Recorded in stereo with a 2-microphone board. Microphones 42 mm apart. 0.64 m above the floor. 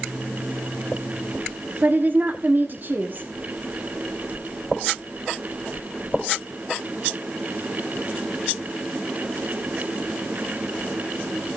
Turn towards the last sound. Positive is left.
turn(degrees=-55)  # may be behind; listen again after turning